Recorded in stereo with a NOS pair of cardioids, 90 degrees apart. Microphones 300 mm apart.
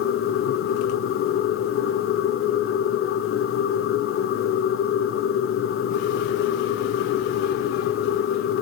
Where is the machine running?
50° left, 0.9 m.